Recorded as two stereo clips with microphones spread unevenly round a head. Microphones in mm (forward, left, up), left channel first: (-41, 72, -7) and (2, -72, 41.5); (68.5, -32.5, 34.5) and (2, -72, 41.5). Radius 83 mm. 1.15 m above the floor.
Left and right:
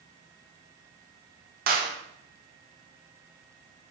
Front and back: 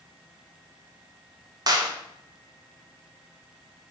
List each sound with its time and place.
1.7 s a clap: 110° right, 1.5 m